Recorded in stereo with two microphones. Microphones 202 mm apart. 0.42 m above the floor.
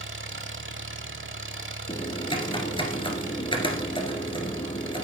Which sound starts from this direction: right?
An engine running, at 0.0 s.